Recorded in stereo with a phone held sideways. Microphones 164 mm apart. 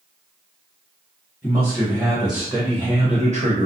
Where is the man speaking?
15° left (ahead or behind), 1.2 m; by 3.7 s 55° right (ahead or behind), 0.7 m.